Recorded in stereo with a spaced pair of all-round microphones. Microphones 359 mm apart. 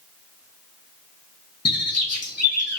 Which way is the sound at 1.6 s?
45° left (ahead or behind).